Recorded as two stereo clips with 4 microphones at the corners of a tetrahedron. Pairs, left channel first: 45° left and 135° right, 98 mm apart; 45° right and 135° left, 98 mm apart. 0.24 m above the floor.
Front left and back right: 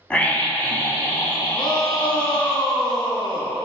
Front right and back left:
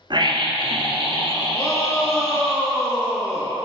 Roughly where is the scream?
Behind left.